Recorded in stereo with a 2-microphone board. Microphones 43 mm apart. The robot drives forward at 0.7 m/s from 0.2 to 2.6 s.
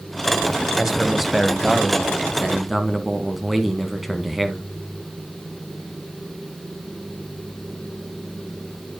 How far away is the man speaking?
About 1.0 m.